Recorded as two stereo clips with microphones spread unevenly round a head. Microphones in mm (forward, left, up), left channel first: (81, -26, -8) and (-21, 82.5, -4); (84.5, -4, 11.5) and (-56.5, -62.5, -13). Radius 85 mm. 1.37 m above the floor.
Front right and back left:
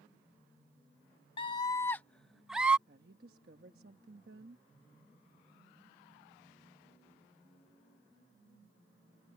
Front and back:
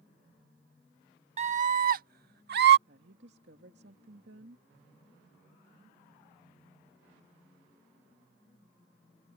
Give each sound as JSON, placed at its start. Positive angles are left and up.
{"t": 1.4, "sound": "a scream", "azimuth_deg": -110}
{"t": 2.9, "sound": "a woman speaking", "azimuth_deg": 170}